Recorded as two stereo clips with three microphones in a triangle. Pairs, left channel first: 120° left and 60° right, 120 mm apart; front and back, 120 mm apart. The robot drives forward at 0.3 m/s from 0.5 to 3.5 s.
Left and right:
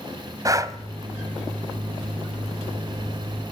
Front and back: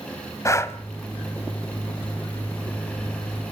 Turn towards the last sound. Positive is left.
turn(degrees=-145)